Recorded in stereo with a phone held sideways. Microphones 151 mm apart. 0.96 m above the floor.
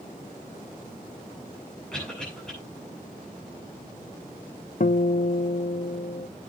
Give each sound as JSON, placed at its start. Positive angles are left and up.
{"t": 1.9, "sound": "a cough", "side_deg": 5, "distance_m": 9.0}
{"t": 4.8, "sound": "a guitar", "side_deg": 60, "distance_m": 0.5}